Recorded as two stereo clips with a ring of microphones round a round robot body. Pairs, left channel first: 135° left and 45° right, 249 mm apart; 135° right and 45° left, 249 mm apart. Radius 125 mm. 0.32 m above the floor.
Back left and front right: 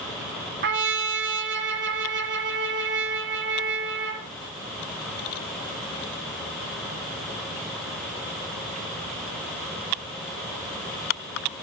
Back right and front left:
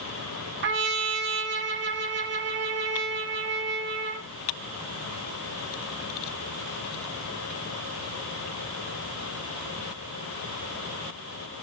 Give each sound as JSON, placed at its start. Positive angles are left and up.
{"t": 0.6, "sound": "a trumpet", "azimuth_deg": 0, "distance_m": 1.9}